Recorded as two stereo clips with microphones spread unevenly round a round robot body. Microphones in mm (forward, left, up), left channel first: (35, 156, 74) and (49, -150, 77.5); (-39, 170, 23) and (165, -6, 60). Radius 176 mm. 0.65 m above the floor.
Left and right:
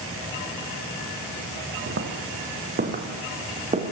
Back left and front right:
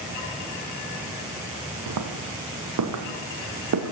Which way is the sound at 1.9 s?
35° right.